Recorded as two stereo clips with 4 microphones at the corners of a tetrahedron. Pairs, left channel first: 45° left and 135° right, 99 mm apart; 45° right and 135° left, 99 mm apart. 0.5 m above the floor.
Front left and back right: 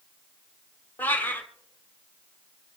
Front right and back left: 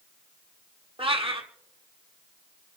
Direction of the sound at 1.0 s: 115° left.